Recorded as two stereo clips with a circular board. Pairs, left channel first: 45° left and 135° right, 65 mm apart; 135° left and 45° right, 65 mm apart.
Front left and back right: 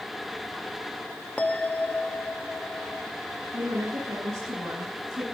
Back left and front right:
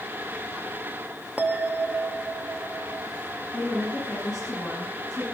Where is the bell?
5° right, 1.0 m.